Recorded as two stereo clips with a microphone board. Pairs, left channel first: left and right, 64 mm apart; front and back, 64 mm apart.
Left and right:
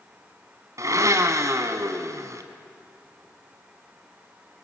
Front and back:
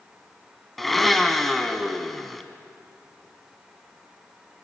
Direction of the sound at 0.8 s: 85° right.